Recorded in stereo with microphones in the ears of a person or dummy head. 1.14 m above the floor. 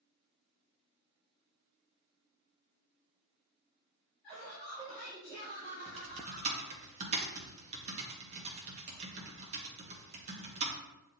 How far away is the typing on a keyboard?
About 0.8 m.